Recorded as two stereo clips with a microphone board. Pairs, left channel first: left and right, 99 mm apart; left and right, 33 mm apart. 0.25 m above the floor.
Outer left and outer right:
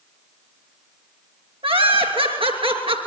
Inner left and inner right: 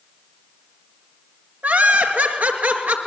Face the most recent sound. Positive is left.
turn(degrees=-70)  # may be behind; listen again after turning